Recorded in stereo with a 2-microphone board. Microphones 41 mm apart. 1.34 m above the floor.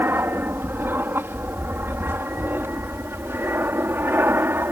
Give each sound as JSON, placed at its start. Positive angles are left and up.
{"t": 0.0, "sound": "an aircraft", "side_deg": -60}